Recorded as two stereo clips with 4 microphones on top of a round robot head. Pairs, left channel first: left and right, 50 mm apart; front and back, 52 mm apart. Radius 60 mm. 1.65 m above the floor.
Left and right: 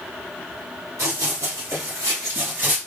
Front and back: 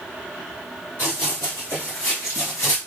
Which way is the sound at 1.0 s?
60° right.